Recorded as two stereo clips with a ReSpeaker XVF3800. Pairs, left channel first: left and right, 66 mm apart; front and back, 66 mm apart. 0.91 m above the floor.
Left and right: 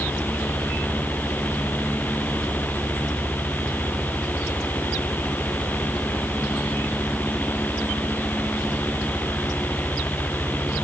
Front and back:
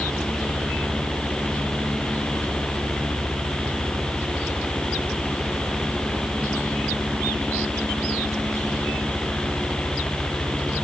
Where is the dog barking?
No dog barking in this recording.